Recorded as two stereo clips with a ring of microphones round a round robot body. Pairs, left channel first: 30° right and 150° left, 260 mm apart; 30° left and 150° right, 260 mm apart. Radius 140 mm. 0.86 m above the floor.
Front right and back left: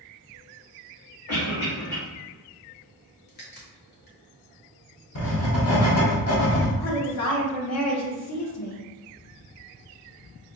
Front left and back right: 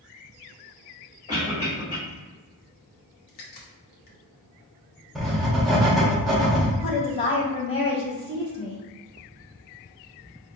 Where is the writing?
60° right, 1.1 m.